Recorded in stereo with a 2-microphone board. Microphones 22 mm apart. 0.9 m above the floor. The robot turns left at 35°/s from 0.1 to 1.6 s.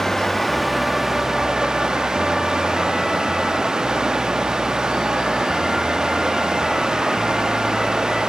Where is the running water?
15° left, 1.1 m; by 8.3 s 35° right, 1.1 m.